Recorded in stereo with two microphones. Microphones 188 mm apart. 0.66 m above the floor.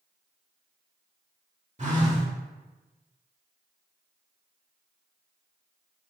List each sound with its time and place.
1.8 s a phone buzzing: 40° right (ahead or behind), 0.9 m